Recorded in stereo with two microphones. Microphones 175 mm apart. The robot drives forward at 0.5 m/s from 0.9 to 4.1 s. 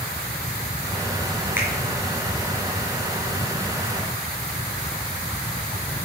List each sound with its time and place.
1.6 s a finger snap: 10° right (ahead or behind), 4 m